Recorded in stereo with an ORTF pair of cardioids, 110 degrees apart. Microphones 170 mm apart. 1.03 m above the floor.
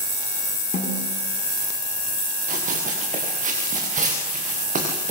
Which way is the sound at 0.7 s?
55° left.